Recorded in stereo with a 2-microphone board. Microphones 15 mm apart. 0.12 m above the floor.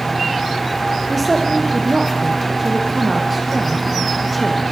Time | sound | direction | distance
1.1 | a woman speaking | centre (ahead or behind) | 5.5 m